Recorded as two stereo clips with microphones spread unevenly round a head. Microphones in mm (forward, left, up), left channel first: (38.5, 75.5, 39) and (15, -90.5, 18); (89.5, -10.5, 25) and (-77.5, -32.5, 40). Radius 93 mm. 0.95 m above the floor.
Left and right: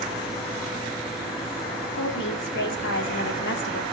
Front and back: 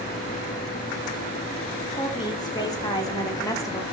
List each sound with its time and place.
1.9 s a woman speaking: 75° left, 3.5 m; by 3.8 s 80° left, 2.5 m